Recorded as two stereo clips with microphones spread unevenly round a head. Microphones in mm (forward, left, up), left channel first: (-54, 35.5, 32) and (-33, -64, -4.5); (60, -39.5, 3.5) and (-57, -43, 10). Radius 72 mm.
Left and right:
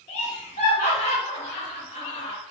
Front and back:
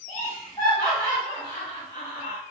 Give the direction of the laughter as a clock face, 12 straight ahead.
9 o'clock.